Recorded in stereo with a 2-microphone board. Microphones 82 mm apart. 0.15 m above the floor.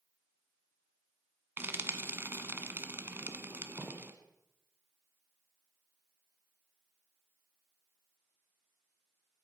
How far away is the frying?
About 1.3 m.